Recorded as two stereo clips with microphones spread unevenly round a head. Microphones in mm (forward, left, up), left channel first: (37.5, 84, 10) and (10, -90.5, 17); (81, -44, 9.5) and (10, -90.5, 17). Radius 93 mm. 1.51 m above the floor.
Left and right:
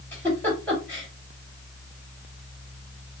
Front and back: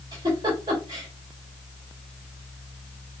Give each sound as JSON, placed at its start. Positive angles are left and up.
{"t": 0.1, "sound": "a giggle", "azimuth_deg": 160, "distance_m": 2.5}